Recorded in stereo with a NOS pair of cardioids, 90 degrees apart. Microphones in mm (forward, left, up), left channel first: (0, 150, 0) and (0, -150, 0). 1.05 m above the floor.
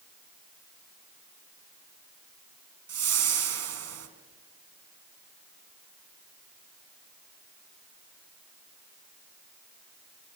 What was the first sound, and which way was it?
A whoosh, 50° right.